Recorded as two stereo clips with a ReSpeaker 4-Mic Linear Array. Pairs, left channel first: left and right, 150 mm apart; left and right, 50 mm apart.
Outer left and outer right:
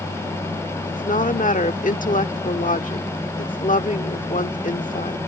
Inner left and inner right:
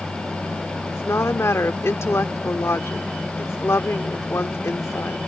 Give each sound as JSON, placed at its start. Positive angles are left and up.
{"t": 0.9, "sound": "a woman speaking", "side_deg": 65}